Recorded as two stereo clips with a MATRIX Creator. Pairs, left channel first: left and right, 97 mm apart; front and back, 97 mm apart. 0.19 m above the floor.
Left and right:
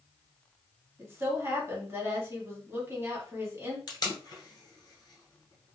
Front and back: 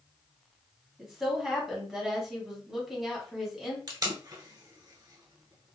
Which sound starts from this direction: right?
A woman speaking, at 1.0 s.